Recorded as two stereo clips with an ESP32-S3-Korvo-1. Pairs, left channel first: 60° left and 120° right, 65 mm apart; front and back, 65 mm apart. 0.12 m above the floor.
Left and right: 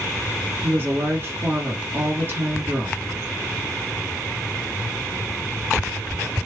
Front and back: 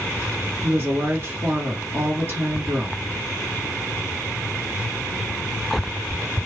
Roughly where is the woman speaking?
Behind right.